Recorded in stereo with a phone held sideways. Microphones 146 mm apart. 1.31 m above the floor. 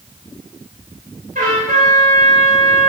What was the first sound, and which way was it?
A trumpet, 75° right (ahead or behind).